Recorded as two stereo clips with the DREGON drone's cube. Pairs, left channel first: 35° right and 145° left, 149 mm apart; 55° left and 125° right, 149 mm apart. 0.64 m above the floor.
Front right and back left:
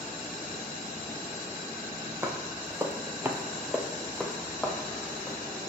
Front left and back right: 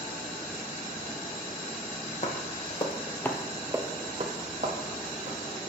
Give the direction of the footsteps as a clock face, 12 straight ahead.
9 o'clock.